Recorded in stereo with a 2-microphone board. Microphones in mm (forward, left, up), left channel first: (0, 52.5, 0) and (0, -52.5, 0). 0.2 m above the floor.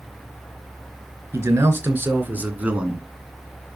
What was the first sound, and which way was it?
A man speaking, 25° right (ahead or behind).